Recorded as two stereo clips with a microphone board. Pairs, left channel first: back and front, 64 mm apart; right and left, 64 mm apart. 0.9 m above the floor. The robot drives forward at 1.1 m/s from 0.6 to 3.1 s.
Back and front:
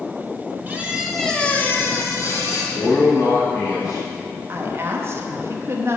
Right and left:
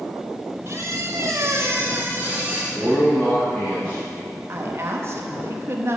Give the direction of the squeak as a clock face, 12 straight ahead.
10 o'clock.